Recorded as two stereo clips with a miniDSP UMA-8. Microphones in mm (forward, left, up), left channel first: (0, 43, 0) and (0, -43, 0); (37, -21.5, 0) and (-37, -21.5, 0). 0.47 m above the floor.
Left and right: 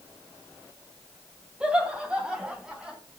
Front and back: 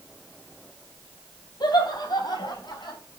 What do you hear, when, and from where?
1.6 s laughter: 15° right, 3.5 m; by 3.0 s 10° right, 4.5 m